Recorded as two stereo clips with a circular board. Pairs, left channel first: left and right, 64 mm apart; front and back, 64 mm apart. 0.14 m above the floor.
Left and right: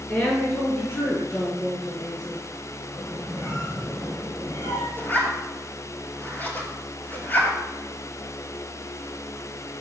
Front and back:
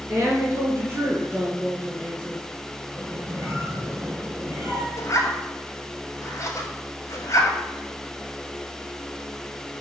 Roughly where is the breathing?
I don't hear breathing.